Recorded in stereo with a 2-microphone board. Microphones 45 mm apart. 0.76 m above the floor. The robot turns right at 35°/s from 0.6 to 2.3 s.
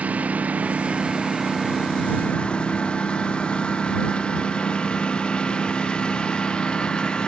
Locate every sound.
0.0 s a lawn mower: 35° right (ahead or behind); by 7.3 s 20° left (ahead or behind)